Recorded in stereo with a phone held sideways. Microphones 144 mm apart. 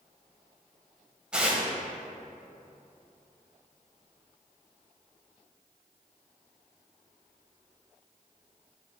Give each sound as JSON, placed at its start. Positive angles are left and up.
{"t": 1.3, "sound": "tearing paper", "side_deg": -5, "distance_m": 1.2}